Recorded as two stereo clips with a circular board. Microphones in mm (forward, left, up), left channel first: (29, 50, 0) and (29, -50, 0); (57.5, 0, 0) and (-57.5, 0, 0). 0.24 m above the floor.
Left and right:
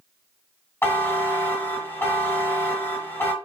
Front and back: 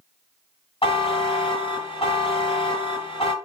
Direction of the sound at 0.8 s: 25° left.